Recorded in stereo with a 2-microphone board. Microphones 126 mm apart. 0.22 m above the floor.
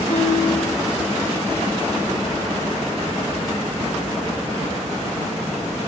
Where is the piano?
80° left, 7 m.